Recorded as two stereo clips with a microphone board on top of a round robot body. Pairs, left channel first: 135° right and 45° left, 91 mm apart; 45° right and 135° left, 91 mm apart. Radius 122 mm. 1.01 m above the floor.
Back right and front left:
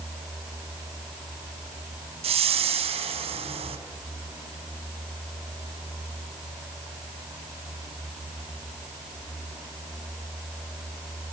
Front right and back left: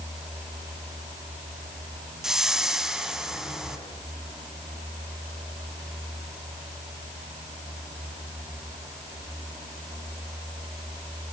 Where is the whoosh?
50° left, 2.5 m.